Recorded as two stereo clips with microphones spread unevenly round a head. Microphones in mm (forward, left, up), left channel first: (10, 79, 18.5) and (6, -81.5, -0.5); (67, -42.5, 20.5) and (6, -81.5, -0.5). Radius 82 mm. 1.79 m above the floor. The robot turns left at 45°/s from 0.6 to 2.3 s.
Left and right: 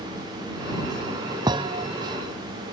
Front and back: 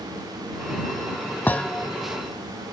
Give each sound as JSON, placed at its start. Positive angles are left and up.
{"t": 1.5, "sound": "a thud", "azimuth_deg": -25}